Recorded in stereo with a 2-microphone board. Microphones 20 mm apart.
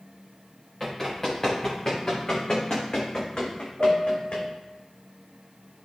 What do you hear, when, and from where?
0.8 s running footsteps: 20° left (ahead or behind), 4.5 m; by 4.5 s 70° left (ahead or behind), 2.5 m
3.8 s a piano: 35° right (ahead or behind), 2.5 m